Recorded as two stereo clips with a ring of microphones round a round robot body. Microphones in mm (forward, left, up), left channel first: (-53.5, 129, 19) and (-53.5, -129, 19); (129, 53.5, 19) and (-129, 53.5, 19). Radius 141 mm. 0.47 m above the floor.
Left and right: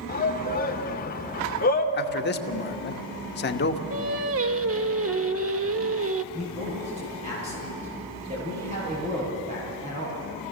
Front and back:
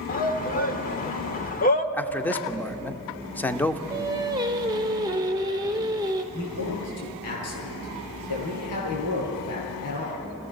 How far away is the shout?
About 1.3 m.